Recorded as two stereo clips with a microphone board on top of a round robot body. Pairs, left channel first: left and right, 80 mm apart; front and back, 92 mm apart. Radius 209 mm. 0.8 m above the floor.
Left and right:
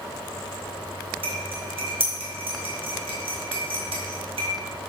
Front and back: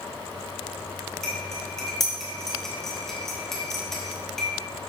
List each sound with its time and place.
1.2 s cutlery clinking: 85° right, 2.5 m